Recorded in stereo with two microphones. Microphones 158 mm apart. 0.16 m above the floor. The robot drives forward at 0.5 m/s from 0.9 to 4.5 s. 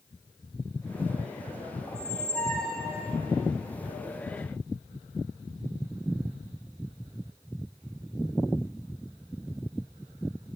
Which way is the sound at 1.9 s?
10° left (ahead or behind).